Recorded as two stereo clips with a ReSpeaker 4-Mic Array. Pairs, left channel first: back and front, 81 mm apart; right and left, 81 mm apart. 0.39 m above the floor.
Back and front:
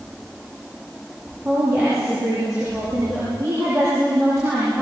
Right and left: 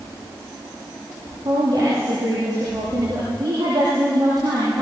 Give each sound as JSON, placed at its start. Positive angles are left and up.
{"t": 1.4, "sound": "a woman speaking", "azimuth_deg": 55, "distance_m": 9.0}